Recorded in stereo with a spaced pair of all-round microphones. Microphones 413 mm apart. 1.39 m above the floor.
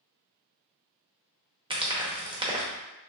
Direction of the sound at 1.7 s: 10° right (ahead or behind).